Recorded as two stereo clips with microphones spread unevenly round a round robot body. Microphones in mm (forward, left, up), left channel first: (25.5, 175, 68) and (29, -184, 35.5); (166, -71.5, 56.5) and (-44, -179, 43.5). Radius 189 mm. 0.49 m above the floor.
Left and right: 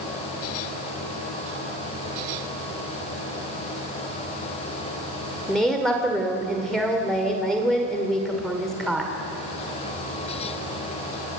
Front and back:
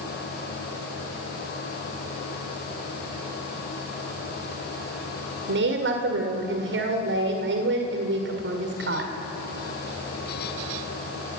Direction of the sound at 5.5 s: 175° right.